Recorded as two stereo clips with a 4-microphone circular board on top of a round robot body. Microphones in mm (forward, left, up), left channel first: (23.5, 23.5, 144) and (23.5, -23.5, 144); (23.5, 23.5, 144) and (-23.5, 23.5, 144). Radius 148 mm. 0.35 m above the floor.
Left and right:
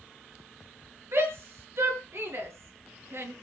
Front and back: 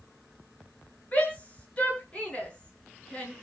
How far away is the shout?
About 7 m.